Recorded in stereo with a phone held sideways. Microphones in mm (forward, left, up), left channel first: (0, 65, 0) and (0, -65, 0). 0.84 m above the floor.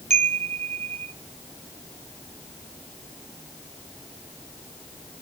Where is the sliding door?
I don't hear a sliding door.